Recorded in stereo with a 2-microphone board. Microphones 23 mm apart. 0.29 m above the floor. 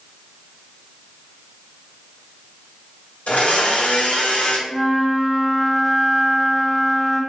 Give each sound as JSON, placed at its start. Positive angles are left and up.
{"t": 3.3, "sound": "a blender", "side_deg": 85, "distance_m": 0.6}
{"t": 4.7, "sound": "a flute", "side_deg": 25, "distance_m": 1.5}